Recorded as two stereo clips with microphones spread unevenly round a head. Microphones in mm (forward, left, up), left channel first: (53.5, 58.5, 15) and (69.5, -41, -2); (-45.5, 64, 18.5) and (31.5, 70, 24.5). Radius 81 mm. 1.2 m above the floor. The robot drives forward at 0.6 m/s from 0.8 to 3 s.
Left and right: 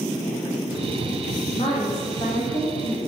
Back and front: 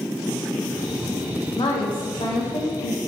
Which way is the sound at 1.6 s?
160° left.